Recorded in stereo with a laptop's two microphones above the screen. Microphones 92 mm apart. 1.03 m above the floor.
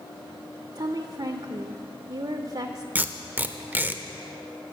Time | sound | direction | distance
0.8 | a woman speaking | 50° right (ahead or behind) | 0.5 m
3.0 | tape being pulled | 20° right (ahead or behind) | 0.5 m